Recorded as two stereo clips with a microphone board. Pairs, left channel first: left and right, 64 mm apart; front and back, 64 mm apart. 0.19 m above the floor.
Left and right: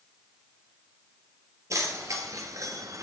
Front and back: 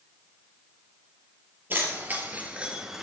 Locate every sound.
1.7 s keys jangling: 125° right, 3.5 m; by 3.0 s 95° right, 1.8 m